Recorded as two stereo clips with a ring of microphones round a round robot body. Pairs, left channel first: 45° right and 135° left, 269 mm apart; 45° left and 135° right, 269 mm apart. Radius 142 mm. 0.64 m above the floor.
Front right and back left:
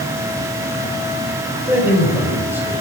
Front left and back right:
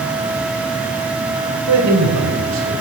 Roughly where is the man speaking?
Behind right.